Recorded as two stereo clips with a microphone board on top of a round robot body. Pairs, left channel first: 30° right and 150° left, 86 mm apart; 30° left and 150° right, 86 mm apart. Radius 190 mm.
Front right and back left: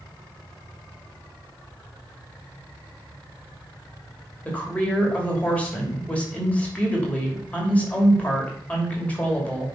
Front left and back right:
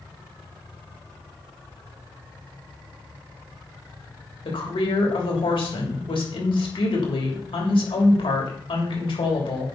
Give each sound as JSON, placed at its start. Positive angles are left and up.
{"t": 4.5, "sound": "a woman speaking", "azimuth_deg": 45, "distance_m": 3.0}